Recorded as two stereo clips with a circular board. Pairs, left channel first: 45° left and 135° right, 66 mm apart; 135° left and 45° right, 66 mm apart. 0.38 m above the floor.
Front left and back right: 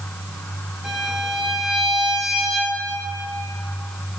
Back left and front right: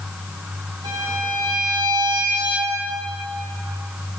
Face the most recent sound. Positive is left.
turn(degrees=-50)